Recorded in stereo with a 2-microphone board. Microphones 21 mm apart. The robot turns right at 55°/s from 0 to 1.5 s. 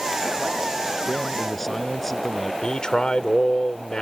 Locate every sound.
1.1 s a man speaking: 5° right (ahead or behind); by 2.5 s 20° left (ahead or behind)
2.6 s a man speaking: 50° left (ahead or behind)